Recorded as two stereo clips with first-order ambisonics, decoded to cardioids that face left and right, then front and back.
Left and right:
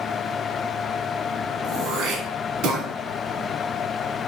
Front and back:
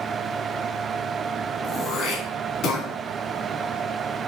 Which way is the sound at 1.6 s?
45° right.